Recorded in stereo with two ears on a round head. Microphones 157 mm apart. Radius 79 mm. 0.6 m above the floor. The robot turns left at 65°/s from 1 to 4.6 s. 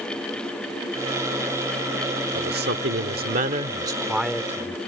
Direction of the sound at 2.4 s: 55° right.